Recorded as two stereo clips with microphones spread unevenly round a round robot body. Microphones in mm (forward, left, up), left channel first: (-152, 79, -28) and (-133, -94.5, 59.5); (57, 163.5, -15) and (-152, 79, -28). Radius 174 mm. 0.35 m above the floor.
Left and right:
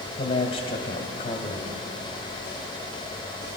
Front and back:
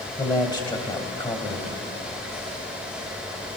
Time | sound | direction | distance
0.2 | a man speaking | 95° left | 2 m